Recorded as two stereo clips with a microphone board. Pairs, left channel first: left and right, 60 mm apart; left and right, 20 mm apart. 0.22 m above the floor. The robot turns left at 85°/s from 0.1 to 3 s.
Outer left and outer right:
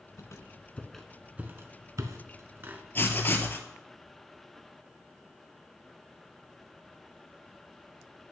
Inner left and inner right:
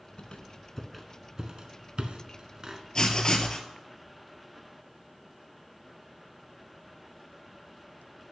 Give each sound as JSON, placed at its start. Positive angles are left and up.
{"t": 0.2, "sound": "a squeak", "side_deg": 65, "distance_m": 0.7}
{"t": 3.0, "sound": "writing", "side_deg": 35, "distance_m": 0.8}